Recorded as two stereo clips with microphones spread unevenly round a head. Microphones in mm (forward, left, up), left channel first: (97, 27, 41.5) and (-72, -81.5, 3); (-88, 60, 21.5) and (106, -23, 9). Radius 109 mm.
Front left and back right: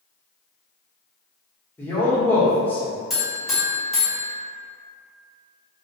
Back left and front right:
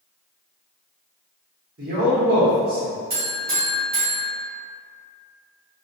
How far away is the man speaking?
About 1.0 m.